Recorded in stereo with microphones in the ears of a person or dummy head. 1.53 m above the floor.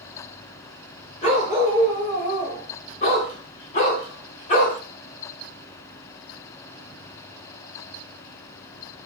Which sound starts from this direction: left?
A dog barking, at 1.2 s.